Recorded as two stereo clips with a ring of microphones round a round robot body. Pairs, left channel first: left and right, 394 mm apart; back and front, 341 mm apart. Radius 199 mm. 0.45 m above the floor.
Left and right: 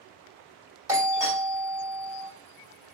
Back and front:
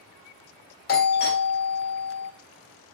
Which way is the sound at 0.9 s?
165° right.